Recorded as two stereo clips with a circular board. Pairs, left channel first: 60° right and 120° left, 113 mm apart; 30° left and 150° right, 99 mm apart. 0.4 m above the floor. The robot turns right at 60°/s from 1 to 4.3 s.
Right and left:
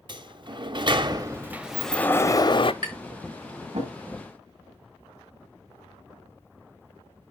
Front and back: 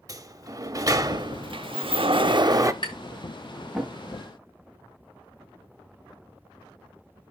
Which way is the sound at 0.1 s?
165° left.